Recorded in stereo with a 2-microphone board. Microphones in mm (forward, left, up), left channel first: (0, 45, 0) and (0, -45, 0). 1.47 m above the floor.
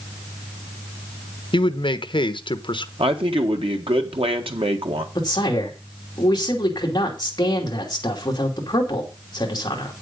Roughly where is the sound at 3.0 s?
Right.